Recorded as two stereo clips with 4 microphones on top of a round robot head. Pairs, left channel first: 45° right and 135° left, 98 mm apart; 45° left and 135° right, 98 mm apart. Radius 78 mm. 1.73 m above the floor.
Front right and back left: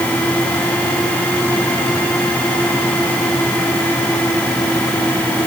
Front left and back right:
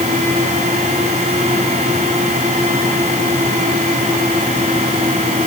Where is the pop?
No pop in this recording.